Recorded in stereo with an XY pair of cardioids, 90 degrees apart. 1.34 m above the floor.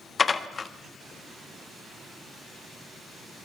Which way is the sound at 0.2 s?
40° left.